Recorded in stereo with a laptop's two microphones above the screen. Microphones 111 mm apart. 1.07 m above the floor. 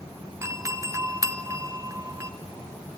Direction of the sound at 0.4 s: 25° right (ahead or behind).